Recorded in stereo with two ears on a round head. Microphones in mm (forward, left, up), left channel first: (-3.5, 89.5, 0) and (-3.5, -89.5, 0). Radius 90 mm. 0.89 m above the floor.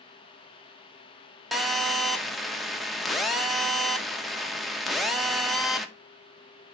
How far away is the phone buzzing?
About 0.6 m.